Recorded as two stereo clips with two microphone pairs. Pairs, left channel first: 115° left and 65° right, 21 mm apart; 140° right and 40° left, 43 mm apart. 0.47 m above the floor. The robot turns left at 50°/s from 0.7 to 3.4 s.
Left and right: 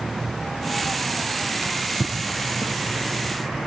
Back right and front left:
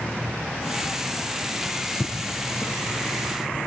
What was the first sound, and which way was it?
A drawer, 50° right.